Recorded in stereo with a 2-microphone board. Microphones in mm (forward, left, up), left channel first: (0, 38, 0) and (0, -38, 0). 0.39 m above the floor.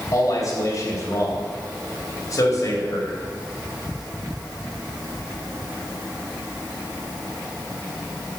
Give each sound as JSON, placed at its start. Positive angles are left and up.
{"t": 0.1, "sound": "a man speaking", "side_deg": 50, "distance_m": 2.0}